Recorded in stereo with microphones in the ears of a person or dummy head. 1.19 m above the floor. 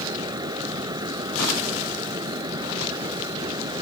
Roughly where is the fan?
Centre.